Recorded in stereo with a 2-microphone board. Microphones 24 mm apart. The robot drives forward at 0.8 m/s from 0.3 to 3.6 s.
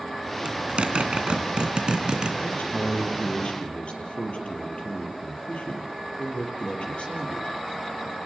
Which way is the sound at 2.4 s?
65° left (ahead or behind).